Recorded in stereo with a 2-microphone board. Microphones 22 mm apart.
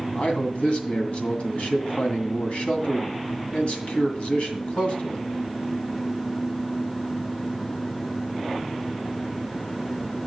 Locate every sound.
0.1 s a man speaking: 65° left (ahead or behind), 2 m